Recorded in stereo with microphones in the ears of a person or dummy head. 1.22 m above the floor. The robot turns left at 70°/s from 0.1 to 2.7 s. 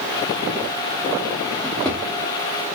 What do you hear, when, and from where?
1.6 s a drawer: centre (ahead or behind), 0.8 m; by 2.0 s 10° left (ahead or behind), 0.8 m